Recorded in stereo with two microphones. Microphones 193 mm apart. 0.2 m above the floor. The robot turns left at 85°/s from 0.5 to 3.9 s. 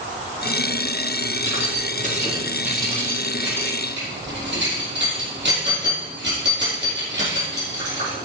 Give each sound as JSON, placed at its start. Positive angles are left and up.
{"t": 1.4, "sound": "keys jangling", "side_deg": 80, "distance_m": 4.0}